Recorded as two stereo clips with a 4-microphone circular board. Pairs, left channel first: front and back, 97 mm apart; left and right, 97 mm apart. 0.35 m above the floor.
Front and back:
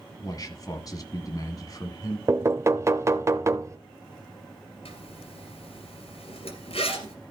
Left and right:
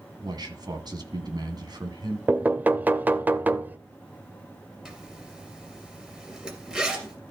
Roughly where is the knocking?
Behind right.